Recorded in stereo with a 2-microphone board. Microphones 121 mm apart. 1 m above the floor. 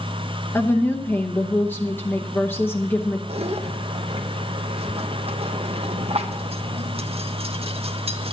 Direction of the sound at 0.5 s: 15° left (ahead or behind).